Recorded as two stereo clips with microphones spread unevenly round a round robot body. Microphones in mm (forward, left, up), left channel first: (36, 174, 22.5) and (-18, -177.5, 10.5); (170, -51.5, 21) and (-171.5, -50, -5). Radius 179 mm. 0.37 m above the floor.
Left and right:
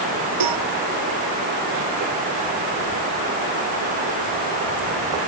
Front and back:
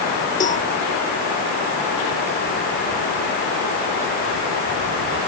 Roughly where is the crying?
I don't hear crying.